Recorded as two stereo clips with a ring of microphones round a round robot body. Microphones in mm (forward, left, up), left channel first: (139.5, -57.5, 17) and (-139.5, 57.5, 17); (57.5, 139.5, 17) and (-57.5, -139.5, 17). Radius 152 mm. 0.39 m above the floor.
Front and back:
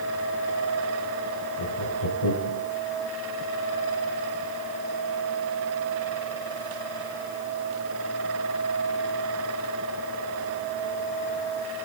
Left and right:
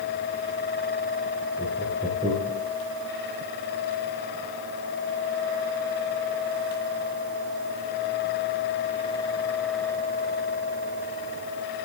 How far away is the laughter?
About 5 m.